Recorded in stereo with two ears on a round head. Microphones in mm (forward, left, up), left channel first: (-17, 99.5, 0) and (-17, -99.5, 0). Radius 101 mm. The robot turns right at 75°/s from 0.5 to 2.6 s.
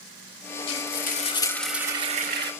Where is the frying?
105° left, 1.7 m; by 2.5 s 115° right, 1.7 m.